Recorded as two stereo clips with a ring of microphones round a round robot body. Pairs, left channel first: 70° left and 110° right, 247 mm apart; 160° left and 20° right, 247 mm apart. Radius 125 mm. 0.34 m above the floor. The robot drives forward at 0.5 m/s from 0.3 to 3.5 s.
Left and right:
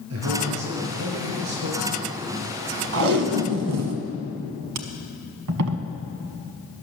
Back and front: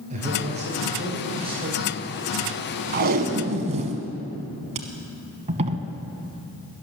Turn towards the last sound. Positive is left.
turn(degrees=-85)